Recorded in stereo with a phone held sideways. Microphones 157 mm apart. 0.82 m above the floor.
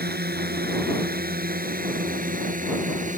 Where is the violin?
I don't hear a violin.